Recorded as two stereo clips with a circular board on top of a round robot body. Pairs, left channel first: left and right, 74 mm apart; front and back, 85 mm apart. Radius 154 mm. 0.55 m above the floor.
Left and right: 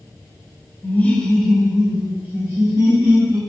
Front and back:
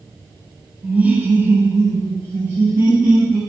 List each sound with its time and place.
0.8 s laughter: 115° left, 1.0 m; by 3.4 s 125° right, 1.6 m